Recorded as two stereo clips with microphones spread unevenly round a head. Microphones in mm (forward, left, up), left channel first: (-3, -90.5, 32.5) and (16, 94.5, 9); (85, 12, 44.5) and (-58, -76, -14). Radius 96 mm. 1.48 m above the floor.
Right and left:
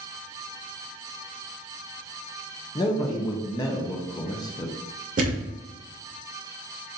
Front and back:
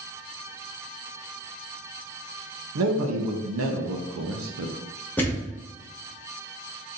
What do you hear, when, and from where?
2.8 s a man speaking: 160° right, 0.7 m
5.2 s a thud: 60° left, 1.0 m